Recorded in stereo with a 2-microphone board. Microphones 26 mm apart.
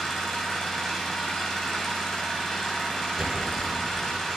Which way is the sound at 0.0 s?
20° left (ahead or behind).